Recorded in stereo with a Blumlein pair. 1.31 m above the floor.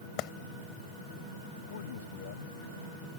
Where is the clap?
40° left.